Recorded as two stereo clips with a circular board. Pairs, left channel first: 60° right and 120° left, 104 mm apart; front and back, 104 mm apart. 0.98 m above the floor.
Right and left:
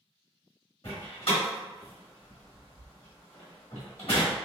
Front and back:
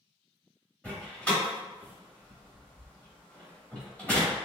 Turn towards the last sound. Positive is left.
turn(degrees=-80)